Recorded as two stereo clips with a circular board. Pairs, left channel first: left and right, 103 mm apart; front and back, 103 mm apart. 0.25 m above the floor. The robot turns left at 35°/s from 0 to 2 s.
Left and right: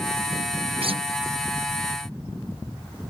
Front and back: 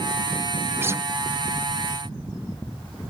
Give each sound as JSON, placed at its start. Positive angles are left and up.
{"t": 0.8, "sound": "a guitar", "azimuth_deg": -110}